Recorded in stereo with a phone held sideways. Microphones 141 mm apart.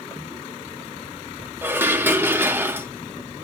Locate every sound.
1.6 s dishes clattering: 15° right (ahead or behind), 0.6 m